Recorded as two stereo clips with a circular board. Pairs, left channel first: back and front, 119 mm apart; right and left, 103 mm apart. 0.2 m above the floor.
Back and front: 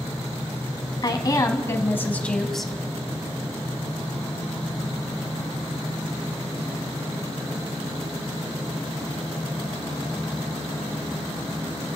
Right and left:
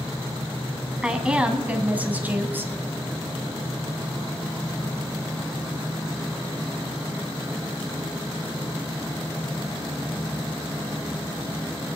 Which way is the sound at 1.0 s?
165° left.